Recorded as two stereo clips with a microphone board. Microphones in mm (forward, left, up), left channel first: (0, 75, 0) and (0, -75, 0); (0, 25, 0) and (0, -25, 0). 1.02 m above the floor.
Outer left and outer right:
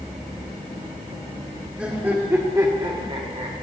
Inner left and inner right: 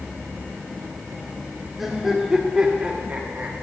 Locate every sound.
1.8 s laughter: 10° right (ahead or behind), 1.6 m; by 3.5 s 45° right (ahead or behind), 1.0 m